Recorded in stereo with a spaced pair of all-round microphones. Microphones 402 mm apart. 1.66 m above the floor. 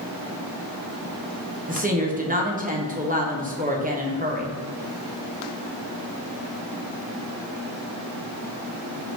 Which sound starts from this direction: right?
A woman speaking, at 1.7 s.